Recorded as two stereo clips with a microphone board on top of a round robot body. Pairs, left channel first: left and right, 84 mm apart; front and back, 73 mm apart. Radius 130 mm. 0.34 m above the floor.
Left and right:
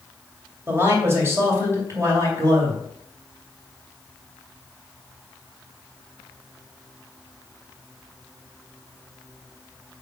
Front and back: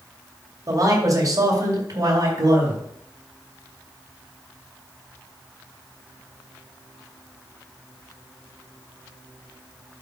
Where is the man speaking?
150° right, 2.5 m; by 2.8 s 140° right, 4 m.